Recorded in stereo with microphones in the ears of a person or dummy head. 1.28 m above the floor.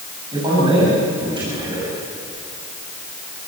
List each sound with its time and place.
0.3 s a man speaking: 30° right (ahead or behind), 6.5 m